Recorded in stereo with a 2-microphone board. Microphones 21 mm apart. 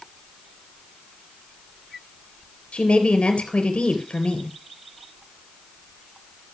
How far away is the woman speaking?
About 3 m.